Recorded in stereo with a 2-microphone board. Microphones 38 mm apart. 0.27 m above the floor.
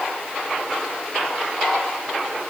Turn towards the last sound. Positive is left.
No sound to turn to.